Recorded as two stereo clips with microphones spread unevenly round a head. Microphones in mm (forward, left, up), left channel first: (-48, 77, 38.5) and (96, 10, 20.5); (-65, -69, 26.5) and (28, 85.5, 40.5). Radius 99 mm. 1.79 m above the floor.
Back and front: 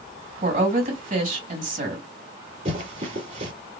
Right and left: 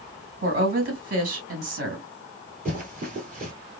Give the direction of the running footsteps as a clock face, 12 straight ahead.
11 o'clock.